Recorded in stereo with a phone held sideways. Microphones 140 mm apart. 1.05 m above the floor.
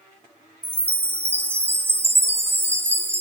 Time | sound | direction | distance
0.6 | a chime | 15° right (ahead or behind) | 0.8 m